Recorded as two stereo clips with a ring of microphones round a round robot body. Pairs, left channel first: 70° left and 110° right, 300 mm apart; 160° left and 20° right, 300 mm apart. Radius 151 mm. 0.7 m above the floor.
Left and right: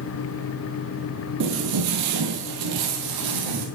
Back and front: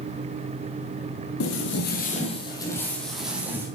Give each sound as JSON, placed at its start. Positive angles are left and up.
{"t": 1.4, "sound": "footsteps", "azimuth_deg": -160, "distance_m": 1.3}